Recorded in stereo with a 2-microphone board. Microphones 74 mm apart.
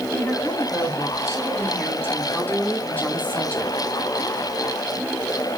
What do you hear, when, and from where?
0.1 s a woman speaking: 40° left (ahead or behind), 4.5 m; by 3.7 s 15° left (ahead or behind), 1.9 m